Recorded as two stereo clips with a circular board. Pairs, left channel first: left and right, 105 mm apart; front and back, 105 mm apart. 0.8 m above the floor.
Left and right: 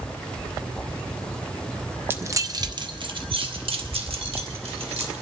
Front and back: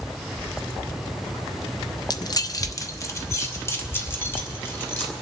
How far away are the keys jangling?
About 0.5 m.